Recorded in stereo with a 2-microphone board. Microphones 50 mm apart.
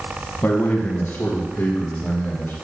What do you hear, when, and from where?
0.4 s a man speaking: 55° left (ahead or behind), 1.6 m; by 2.5 s 50° left (ahead or behind), 3.5 m